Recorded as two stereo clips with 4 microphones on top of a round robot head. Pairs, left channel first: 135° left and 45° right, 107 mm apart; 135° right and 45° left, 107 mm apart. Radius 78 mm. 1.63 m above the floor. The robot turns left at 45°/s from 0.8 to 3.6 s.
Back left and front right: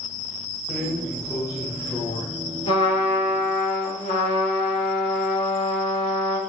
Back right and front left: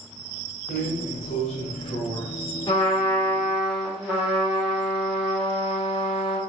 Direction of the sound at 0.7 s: 130° right.